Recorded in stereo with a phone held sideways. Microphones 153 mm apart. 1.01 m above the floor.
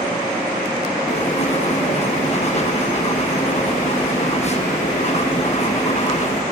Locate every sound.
1.1 s writing: 45° left (ahead or behind), 0.9 m